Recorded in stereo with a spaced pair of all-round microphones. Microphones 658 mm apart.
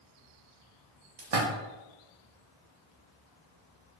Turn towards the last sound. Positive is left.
turn(degrees=-80)